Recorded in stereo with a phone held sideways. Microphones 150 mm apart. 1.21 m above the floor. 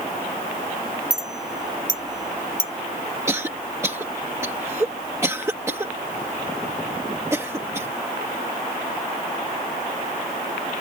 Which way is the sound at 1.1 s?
25° right (ahead or behind).